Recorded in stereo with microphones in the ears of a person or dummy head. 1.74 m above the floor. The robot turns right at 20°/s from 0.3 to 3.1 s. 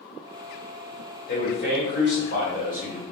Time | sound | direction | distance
1.3 | a man speaking | 105° left | 1.6 m